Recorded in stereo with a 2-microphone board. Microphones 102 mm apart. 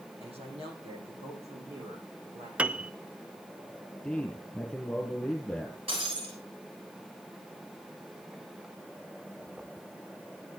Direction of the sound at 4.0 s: Centre (ahead or behind).